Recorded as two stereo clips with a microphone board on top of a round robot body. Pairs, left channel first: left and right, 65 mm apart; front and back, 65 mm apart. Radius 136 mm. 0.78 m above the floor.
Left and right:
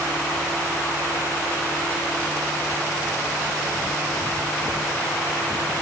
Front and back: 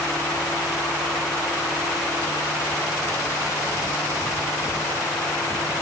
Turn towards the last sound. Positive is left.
No sound to turn to.